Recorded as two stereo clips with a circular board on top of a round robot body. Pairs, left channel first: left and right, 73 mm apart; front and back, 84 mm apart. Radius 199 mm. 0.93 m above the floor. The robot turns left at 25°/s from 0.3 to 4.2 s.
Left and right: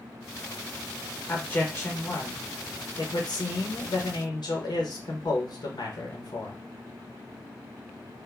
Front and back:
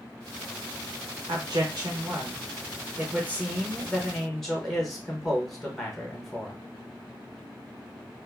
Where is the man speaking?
160° left, 1.1 m; by 6.6 s 85° left, 1.1 m.